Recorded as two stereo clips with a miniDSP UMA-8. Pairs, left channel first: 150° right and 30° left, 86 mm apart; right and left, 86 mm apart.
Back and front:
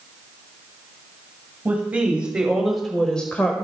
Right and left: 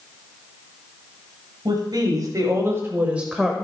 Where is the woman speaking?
95° left, 2 m; by 3.6 s 165° right, 1.3 m.